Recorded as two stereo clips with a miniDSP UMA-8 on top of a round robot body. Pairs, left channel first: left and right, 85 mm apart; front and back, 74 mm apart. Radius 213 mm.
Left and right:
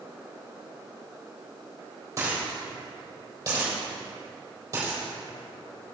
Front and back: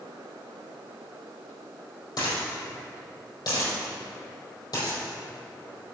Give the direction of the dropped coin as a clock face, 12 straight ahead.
1 o'clock.